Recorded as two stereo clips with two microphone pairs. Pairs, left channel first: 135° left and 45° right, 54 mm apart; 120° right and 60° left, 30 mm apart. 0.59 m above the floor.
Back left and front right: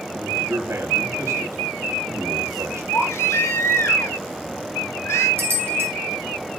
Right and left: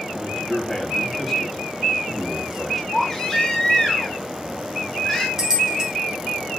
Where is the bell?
5° right, 2.5 m.